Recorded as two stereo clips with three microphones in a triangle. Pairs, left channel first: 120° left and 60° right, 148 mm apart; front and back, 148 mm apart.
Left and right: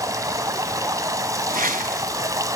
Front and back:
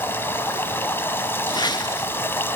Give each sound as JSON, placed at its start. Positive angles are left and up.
{"t": 0.0, "sound": "running water", "azimuth_deg": -50, "distance_m": 0.8}
{"t": 1.5, "sound": "a whoosh", "azimuth_deg": -60, "distance_m": 0.8}